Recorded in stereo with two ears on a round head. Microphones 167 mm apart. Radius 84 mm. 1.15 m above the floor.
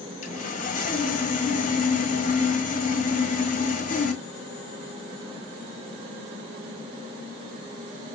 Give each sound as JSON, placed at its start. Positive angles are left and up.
{"t": 0.2, "sound": "sawing", "side_deg": 45, "distance_m": 1.4}